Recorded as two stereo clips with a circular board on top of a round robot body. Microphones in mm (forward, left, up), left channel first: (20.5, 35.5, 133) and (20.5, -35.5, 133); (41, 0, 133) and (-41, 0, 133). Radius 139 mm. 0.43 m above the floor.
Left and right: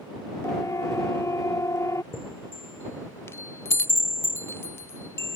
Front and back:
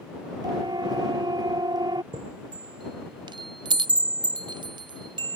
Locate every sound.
0.4 s a siren: 145° left; by 2.0 s 140° left
2.1 s a chime: 150° left